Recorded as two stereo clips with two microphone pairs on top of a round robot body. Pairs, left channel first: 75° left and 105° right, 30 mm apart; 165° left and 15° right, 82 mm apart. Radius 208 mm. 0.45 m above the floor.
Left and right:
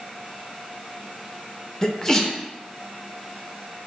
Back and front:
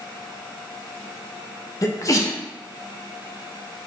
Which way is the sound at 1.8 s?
145° left.